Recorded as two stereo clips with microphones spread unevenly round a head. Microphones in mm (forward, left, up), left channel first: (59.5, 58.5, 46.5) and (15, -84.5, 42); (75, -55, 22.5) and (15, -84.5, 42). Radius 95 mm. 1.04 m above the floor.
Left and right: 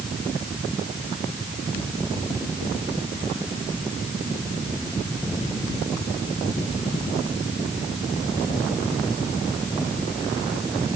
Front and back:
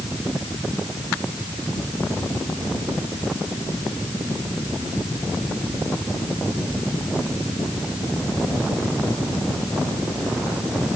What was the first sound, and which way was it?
Only background noise.